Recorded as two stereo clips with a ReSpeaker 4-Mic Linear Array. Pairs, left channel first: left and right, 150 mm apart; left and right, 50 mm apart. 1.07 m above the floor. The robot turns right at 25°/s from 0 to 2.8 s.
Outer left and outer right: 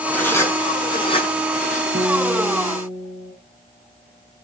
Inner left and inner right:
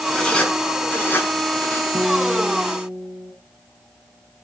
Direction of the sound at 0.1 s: 10° left (ahead or behind).